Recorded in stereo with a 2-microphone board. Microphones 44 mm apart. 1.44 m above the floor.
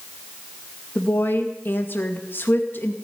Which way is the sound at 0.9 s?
50° left (ahead or behind).